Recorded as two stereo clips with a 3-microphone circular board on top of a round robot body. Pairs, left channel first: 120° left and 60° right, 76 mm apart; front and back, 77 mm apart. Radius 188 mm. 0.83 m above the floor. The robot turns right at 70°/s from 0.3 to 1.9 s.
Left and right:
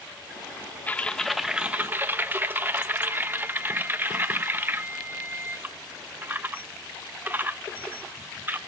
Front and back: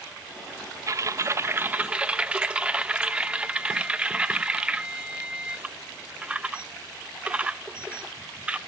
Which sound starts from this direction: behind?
Typing on a keyboard, at 0.9 s.